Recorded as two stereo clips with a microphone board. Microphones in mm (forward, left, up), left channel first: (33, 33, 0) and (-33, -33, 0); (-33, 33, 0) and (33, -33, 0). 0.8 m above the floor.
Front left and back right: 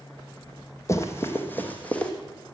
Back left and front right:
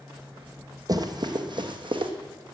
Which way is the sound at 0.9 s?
10° right.